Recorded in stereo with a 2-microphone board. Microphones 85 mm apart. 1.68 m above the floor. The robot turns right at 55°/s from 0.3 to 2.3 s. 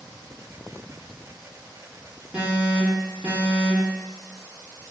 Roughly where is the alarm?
Centre.